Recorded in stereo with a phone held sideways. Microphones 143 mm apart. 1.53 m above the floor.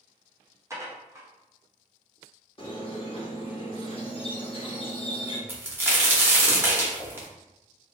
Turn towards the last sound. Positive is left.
turn(degrees=-15)  # may be behind; listen again after turning